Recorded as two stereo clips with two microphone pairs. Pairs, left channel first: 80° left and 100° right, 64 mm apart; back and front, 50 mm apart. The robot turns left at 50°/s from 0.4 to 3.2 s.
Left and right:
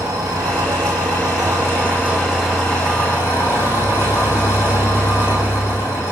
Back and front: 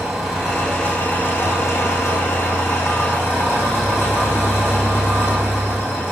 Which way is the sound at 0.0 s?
85° right.